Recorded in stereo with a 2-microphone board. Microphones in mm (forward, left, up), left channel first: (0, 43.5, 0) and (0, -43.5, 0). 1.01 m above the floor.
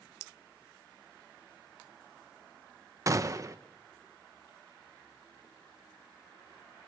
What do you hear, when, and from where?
3.1 s a gunshot: 40° right (ahead or behind), 1.0 m